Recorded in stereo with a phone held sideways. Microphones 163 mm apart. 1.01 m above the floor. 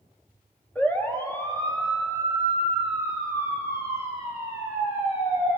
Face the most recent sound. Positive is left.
turn(degrees=40)  # may be behind; listen again after turning